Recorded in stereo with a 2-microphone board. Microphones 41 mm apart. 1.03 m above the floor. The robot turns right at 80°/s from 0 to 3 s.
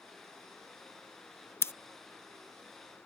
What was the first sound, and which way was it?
Scissors, 75° left (ahead or behind).